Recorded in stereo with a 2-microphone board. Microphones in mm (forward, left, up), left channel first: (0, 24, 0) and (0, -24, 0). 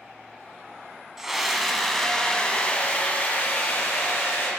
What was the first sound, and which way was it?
A scream, 10° right (ahead or behind).